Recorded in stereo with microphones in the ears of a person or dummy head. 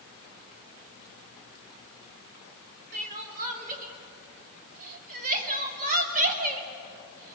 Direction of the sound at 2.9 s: 40° right (ahead or behind).